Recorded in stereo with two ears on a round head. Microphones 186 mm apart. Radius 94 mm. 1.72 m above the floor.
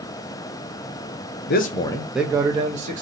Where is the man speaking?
45° left (ahead or behind), 0.6 m; by 3.0 s 35° right (ahead or behind), 0.9 m.